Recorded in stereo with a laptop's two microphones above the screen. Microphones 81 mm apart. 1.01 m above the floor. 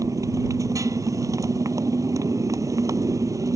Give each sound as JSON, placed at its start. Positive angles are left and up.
{"t": 0.0, "sound": "a motorcycle", "side_deg": -40}